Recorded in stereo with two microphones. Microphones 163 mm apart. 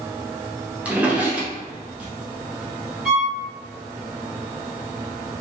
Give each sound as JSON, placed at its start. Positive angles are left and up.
{"t": 0.8, "sound": "a drawer", "side_deg": -10, "distance_m": 0.6}
{"t": 3.0, "sound": "a violin", "side_deg": 0, "distance_m": 1.2}